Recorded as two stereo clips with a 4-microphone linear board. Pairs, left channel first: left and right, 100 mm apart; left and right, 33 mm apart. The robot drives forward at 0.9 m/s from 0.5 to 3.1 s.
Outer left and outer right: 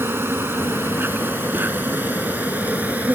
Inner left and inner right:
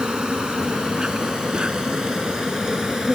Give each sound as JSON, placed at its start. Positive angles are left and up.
{"t": 0.0, "sound": "an insect", "side_deg": -25}